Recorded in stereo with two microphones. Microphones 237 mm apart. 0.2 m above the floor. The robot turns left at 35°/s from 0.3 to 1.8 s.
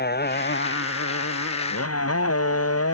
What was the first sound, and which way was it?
A motorcycle, 135° left.